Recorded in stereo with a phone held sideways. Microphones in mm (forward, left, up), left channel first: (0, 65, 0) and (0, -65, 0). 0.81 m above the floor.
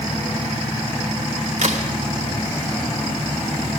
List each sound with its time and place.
1.6 s a crack: 65° right (ahead or behind), 1.3 m